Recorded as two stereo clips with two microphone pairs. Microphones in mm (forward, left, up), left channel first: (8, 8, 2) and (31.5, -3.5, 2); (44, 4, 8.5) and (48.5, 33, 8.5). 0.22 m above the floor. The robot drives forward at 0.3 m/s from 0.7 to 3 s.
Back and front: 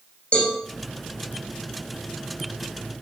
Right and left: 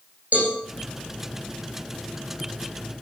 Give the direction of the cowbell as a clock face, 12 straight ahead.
8 o'clock.